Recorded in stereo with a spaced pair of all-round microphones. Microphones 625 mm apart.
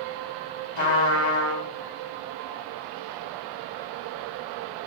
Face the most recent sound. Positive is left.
turn(degrees=45)  # may be behind; listen again after turning